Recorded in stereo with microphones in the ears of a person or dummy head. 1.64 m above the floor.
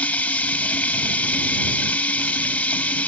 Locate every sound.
0.0 s running water: 10° left (ahead or behind)